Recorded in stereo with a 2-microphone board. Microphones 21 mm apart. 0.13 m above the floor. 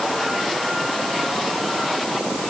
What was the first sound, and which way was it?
Only background noise.